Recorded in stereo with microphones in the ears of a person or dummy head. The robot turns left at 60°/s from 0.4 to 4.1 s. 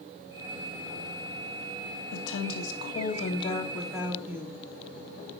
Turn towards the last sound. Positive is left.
turn(degrees=-10)